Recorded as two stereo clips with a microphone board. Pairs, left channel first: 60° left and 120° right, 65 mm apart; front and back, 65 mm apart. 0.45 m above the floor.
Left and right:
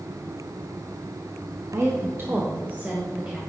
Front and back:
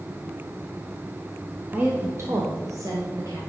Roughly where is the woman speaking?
Behind right.